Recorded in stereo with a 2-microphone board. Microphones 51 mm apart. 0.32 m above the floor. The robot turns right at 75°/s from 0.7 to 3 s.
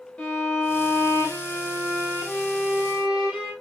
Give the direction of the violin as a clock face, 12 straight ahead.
11 o'clock.